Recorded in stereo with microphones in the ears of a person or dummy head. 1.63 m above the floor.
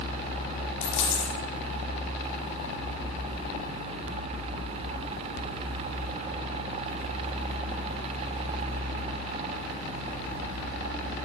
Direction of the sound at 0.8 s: 75° left (ahead or behind).